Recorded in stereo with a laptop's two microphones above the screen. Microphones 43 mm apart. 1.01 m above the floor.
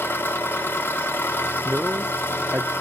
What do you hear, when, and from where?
0.0 s an engine running: 55° left (ahead or behind), 2.5 m
1.6 s a man speaking: 35° right (ahead or behind), 0.6 m